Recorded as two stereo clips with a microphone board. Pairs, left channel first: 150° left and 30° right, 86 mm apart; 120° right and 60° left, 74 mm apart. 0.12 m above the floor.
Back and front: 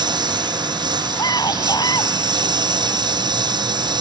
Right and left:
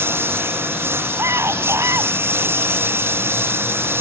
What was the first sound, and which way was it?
A lawn mower, straight ahead.